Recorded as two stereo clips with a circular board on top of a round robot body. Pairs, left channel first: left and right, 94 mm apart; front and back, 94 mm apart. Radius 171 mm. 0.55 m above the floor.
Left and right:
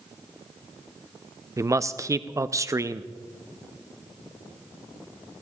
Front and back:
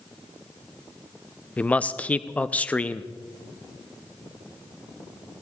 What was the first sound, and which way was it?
A man speaking, 65° right.